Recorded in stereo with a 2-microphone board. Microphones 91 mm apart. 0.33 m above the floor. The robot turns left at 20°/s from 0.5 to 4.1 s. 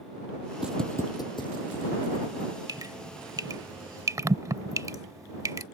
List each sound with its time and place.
0.6 s footsteps: 15° right (ahead or behind); by 2.5 s 70° left (ahead or behind)
2.7 s dripping: 50° right (ahead or behind); by 5.7 s 40° right (ahead or behind)